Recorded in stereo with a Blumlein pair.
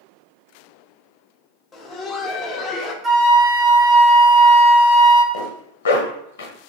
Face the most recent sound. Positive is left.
turn(degrees=60)